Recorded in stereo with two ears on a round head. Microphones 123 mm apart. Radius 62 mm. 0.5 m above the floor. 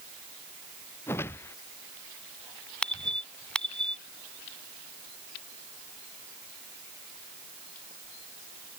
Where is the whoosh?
15° left (ahead or behind).